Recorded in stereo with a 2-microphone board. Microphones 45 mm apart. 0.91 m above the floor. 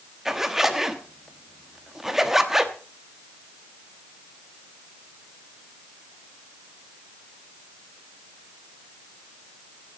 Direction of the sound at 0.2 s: 5° right (ahead or behind).